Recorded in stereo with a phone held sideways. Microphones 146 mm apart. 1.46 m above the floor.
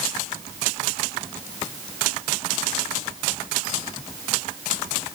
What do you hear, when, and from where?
Only background noise.